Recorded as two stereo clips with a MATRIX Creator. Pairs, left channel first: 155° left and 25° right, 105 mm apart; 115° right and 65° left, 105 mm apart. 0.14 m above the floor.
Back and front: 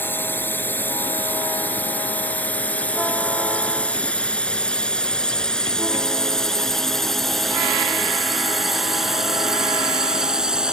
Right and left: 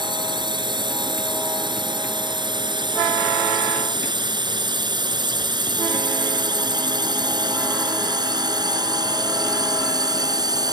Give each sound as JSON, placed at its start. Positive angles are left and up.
{"t": 0.0, "sound": "a drone", "azimuth_deg": 95}